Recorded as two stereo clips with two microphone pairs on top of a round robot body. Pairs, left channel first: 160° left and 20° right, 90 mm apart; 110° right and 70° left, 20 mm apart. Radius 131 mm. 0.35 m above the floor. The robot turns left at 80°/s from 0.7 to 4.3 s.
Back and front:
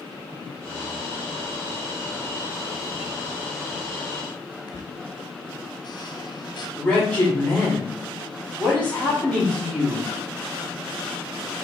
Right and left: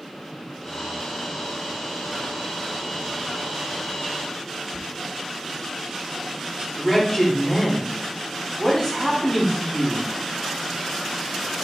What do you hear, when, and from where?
4.7 s a squeak: 125° left, 0.7 m
6.8 s a man speaking: 135° right, 1.7 m